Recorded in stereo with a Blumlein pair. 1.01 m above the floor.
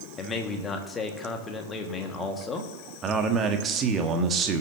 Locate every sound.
0.2 s a man speaking: 20° left, 1.6 m
3.0 s a man speaking: 25° right, 1.5 m